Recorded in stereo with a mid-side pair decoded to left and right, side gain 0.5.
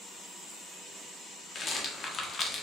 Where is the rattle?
40° left, 0.9 m.